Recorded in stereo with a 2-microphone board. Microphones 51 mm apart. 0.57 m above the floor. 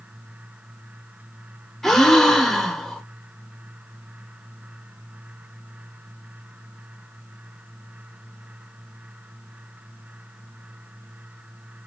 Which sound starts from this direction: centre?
A gasp, at 1.8 s.